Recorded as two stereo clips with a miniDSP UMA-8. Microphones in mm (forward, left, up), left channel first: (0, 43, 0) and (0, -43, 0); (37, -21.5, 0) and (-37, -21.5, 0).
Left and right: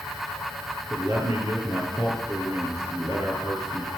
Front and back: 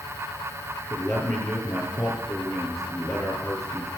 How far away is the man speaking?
About 5 m.